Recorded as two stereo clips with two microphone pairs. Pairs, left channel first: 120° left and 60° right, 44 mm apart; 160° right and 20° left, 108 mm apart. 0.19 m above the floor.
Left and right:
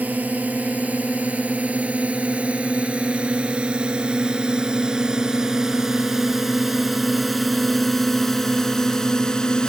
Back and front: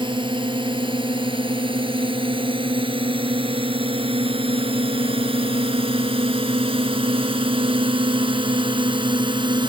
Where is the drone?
15° right; by 9.7 s 50° left.